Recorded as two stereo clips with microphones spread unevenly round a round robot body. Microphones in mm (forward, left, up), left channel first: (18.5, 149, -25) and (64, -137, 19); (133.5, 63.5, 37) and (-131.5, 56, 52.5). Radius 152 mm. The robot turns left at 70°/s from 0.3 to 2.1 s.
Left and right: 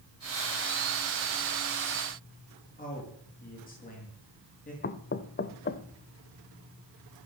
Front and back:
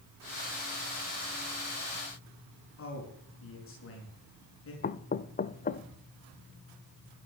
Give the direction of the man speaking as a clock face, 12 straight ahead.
11 o'clock.